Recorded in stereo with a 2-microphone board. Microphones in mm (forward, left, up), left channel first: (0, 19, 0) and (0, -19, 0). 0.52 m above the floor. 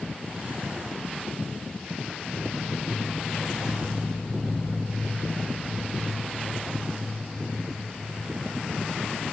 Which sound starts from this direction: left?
Footsteps, at 2.3 s.